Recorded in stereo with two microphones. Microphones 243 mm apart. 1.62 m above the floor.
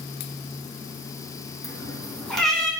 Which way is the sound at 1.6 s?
Centre (ahead or behind).